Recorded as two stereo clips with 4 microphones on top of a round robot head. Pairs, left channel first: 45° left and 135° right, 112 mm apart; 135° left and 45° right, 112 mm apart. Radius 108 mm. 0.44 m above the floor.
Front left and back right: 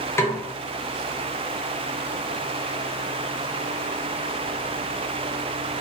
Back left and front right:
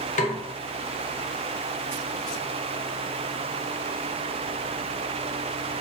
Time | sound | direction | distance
0.2 | a snare drum | 120° left | 0.6 m